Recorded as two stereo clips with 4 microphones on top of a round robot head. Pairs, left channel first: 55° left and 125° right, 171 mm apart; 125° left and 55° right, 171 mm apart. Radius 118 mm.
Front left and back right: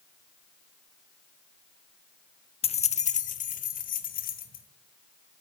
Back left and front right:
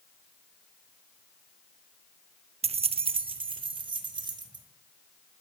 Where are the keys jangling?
Straight ahead, 0.6 m; by 4.7 s 10° left, 1.9 m.